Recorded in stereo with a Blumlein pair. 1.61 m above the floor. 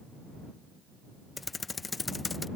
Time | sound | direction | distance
1.4 | typing on a keyboard | 10° left | ?